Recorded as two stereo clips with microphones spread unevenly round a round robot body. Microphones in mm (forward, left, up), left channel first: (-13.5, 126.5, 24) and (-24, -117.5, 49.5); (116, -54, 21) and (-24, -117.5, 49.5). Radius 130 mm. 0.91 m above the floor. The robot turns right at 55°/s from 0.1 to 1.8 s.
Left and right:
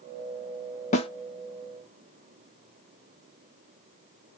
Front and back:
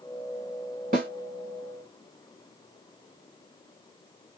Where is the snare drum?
150° left, 0.7 m; by 1.1 s 160° left, 0.7 m.